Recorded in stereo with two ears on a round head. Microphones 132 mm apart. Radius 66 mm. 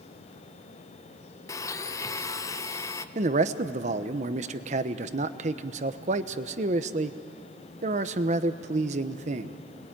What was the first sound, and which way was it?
A blender, 20° left (ahead or behind).